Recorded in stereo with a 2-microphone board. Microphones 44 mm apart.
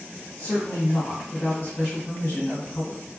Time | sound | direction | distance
0.4 | a woman speaking | 40° left (ahead or behind) | 1.9 m